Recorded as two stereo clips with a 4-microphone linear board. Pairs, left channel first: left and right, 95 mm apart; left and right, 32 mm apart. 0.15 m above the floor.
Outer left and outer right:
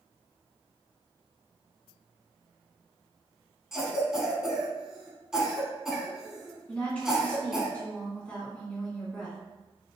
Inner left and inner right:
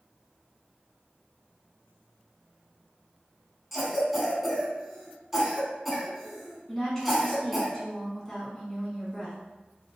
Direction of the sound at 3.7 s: 5° right (ahead or behind).